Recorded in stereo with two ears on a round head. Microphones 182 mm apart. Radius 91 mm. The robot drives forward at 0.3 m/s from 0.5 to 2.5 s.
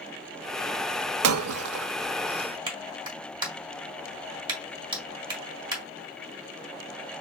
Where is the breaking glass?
80° right, 0.6 m.